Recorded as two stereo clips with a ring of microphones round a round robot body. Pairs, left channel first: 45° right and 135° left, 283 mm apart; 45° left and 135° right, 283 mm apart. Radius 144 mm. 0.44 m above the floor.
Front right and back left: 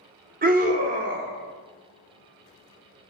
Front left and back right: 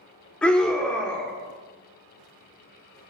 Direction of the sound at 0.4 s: 125° left.